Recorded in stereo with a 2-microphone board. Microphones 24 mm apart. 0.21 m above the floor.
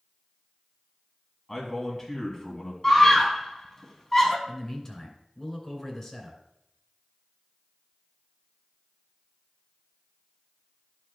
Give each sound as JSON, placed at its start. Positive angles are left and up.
{"t": 1.5, "sound": "a man speaking", "side_deg": 10, "distance_m": 2.0}
{"t": 2.8, "sound": "a scream", "side_deg": 15, "distance_m": 2.0}
{"t": 4.5, "sound": "a man speaking", "side_deg": 15, "distance_m": 2.5}